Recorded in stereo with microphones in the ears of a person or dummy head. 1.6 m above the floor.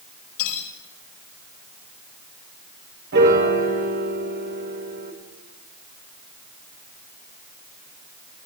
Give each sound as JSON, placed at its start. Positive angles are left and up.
{"t": 0.4, "sound": "cutlery clinking", "side_deg": 80, "distance_m": 5.0}
{"t": 3.1, "sound": "a piano", "side_deg": -60, "distance_m": 3.5}